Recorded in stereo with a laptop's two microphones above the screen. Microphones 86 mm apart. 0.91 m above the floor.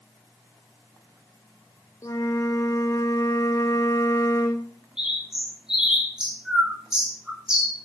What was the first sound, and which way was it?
A flute, 40° left (ahead or behind).